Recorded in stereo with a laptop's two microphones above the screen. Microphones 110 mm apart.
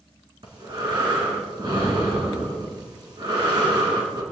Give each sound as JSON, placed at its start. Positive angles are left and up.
{"t": 0.4, "sound": "breathing", "side_deg": -45, "distance_m": 3.5}